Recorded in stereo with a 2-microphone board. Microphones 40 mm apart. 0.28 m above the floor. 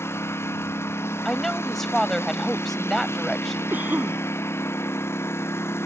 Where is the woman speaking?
5° left (ahead or behind).